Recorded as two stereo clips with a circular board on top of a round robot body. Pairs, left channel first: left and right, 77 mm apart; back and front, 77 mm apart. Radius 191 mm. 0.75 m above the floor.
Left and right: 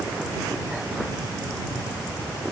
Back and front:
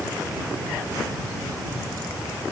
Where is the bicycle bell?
No bicycle bell in this recording.